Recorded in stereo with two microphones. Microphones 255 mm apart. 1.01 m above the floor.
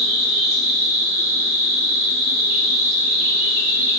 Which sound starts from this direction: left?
An insect, at 0.0 s.